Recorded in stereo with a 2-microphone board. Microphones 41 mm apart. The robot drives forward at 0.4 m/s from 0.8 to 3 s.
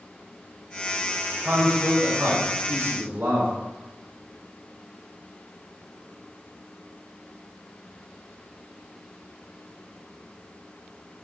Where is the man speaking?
60° right (ahead or behind), 1.4 m; by 3.5 s 55° right (ahead or behind), 1.4 m.